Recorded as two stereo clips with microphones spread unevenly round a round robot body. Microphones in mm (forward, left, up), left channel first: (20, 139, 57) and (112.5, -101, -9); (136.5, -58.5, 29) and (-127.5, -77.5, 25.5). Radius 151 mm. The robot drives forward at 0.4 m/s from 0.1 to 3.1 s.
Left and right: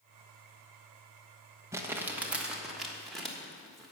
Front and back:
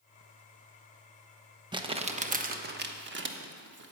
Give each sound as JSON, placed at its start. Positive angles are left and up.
{"t": 1.7, "sound": "crumpling", "azimuth_deg": -115, "distance_m": 1.1}